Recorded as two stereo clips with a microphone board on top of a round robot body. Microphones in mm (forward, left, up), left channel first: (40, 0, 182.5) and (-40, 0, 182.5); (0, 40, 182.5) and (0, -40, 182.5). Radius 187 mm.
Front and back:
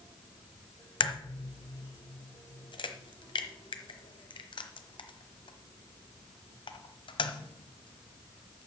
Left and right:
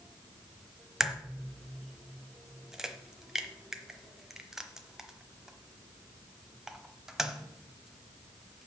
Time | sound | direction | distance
1.0 | a crack | 5° right | 1.0 m